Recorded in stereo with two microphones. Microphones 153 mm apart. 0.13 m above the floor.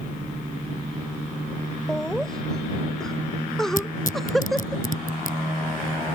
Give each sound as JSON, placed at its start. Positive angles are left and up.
{"t": 1.9, "sound": "laughter", "side_deg": 5}
{"t": 3.8, "sound": "tearing paper", "side_deg": 60}